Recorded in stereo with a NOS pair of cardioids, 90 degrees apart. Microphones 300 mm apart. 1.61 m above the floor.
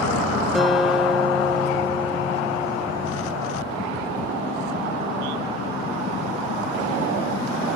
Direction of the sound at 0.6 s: Straight ahead.